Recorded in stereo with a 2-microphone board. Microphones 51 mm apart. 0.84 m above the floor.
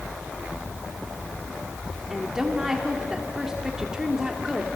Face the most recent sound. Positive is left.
turn(degrees=-10)  # may be behind; listen again after turning